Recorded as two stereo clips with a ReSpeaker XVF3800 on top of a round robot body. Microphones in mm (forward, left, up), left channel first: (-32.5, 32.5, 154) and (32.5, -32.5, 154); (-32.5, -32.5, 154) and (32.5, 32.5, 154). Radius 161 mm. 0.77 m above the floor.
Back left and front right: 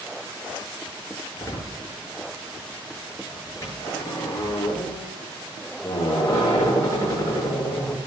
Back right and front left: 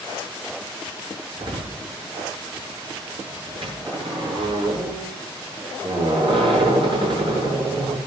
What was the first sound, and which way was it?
A door slam, 75° left.